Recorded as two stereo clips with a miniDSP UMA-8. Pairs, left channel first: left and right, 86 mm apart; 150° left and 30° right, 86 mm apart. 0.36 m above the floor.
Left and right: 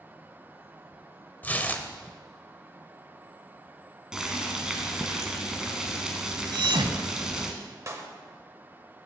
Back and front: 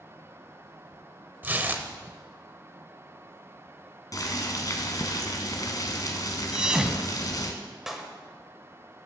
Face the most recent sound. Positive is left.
turn(degrees=-115)